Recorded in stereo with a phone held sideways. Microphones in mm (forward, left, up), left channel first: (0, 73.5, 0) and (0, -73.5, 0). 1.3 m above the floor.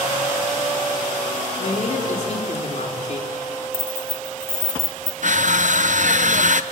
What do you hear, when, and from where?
1.6 s a man speaking: 55° left (ahead or behind), 4 m
3.7 s keys jangling: 15° right (ahead or behind), 1.0 m
5.2 s crushing: 60° right (ahead or behind), 0.6 m